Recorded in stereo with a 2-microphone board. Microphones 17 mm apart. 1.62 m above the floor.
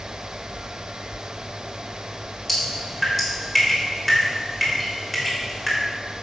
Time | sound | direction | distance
2.5 | dripping | 5° left (ahead or behind) | 4 m